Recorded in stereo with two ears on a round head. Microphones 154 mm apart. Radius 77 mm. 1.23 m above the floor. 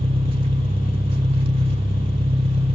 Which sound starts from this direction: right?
An engine running, at 0.0 s.